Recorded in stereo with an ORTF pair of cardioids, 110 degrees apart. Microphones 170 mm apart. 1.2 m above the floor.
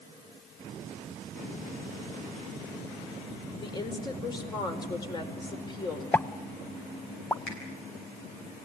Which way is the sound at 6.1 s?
10° left.